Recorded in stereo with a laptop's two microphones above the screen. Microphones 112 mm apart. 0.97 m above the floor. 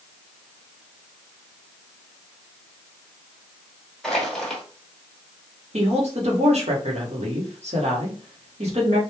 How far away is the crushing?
About 1.1 m.